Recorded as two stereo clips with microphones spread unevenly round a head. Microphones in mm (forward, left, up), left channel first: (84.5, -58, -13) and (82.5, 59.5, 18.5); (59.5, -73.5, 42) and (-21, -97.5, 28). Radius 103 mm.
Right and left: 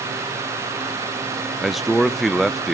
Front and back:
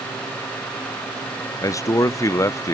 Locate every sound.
1.6 s a man speaking: 20° right, 0.5 m